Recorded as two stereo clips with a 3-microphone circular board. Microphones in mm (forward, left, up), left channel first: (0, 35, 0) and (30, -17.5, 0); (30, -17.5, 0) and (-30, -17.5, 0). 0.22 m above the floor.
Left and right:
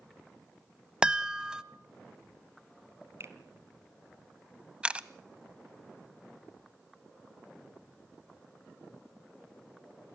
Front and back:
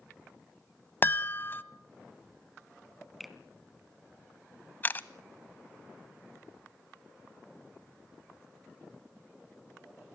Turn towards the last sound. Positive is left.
turn(degrees=-5)